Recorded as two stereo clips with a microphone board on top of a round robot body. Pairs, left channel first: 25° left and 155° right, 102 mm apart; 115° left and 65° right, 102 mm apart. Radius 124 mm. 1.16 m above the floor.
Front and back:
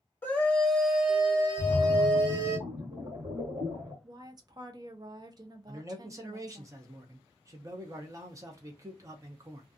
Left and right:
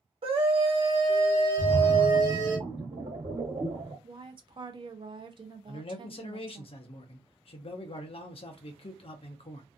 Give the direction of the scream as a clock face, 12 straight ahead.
2 o'clock.